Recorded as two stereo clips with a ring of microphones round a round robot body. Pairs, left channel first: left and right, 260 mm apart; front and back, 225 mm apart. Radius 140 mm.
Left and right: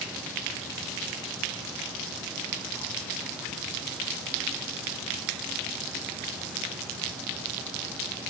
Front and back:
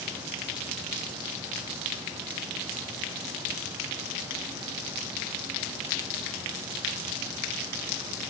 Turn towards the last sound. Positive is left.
No sound to turn to.